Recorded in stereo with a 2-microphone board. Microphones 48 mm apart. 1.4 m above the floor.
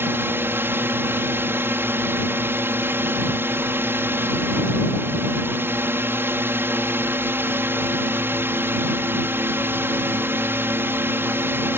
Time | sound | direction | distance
0.0 | a drone | 50° right (ahead or behind) | ?